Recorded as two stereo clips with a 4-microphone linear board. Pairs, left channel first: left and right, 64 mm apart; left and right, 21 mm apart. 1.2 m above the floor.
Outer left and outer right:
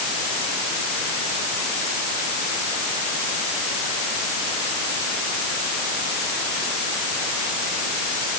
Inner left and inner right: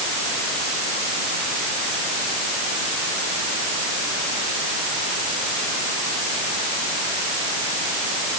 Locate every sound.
Only background noise.